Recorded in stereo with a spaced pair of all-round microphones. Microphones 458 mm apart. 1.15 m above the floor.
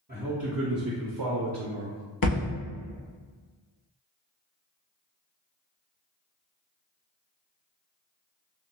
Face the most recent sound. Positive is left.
turn(degrees=50)  # may be behind; listen again after turning